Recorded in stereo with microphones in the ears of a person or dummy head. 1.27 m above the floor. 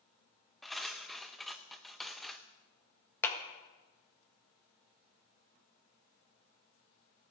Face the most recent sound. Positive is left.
turn(degrees=15)  # may be behind; listen again after turning